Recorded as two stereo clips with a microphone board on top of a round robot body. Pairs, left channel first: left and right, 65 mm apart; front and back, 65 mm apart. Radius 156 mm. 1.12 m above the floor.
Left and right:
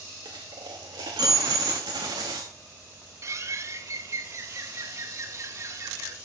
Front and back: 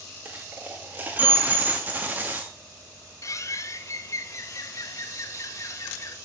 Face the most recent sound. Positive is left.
turn(degrees=-45)